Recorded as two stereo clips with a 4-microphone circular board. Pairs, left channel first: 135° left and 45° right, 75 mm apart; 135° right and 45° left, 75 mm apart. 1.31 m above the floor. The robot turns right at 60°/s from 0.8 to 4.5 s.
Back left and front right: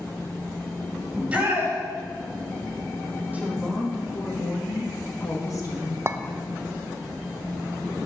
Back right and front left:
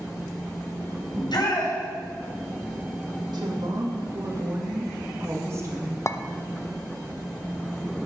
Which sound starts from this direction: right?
A clink, at 6.1 s.